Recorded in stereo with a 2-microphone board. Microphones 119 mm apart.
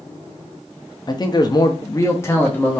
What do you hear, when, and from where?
1.1 s a man speaking: 35° left (ahead or behind), 0.6 m; by 2.8 s 15° left (ahead or behind), 0.9 m